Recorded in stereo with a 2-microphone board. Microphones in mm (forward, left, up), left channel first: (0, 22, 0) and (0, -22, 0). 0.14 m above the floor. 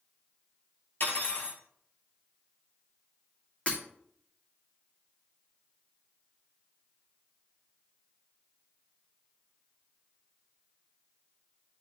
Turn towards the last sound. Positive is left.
turn(degrees=30)  # may be behind; listen again after turning